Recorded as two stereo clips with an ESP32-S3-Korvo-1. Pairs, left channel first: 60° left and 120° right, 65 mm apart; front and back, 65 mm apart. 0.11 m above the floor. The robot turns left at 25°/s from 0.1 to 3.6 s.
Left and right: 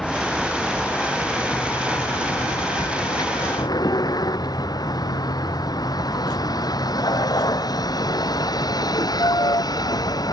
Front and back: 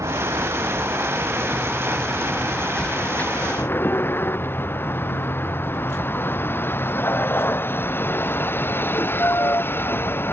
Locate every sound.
0.0 s a vehicle: 145° left; by 10.3 s 55° left